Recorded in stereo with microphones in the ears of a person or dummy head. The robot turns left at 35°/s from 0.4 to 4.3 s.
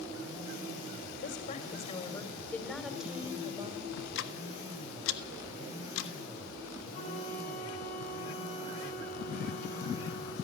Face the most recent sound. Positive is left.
turn(degrees=35)  # may be behind; listen again after turning